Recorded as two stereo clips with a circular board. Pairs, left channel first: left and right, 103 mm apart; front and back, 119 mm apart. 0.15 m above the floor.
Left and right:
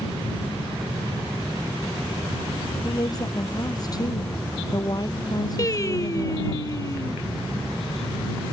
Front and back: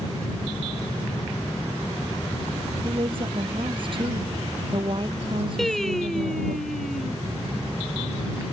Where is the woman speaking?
140° left.